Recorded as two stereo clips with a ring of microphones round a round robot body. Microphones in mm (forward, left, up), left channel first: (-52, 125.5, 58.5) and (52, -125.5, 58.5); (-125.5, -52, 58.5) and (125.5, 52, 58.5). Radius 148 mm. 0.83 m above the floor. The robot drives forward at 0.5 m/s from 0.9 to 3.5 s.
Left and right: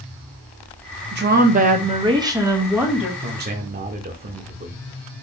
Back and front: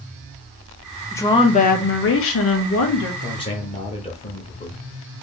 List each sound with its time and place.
1.1 s a woman speaking: 80° right, 0.7 m; by 3.1 s 155° right, 1.2 m
3.2 s a man speaking: 85° right, 0.7 m; by 4.8 s 100° right, 0.7 m